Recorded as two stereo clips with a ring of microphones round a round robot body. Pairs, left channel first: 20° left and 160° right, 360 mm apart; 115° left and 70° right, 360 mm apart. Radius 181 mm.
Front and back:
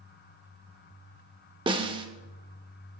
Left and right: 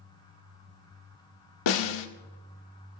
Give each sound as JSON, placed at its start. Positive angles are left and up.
{"t": 1.7, "sound": "a snare drum", "azimuth_deg": 125, "distance_m": 1.2}